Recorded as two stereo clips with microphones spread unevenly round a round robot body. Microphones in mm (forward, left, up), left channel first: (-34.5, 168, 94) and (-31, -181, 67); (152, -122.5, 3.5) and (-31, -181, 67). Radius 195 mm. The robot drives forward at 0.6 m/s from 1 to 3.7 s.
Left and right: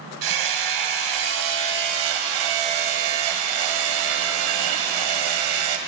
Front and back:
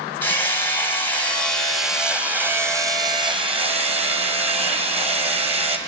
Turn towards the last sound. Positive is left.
turn(degrees=-95)